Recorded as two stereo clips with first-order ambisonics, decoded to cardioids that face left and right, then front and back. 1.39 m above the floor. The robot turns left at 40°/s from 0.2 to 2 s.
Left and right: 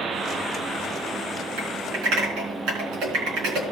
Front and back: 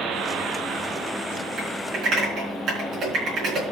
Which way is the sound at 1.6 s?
105° right.